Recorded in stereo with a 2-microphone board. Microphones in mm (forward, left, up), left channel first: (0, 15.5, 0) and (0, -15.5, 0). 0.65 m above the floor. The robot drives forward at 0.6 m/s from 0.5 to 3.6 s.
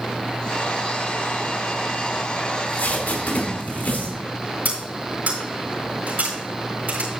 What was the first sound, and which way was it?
Tape being pulled, 75° left (ahead or behind).